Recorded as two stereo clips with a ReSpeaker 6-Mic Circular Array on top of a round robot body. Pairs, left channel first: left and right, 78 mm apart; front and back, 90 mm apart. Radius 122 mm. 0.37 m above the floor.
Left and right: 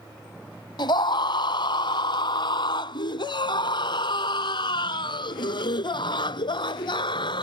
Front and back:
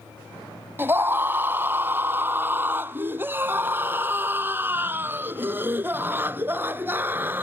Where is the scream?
115° left; by 7.5 s 110° left.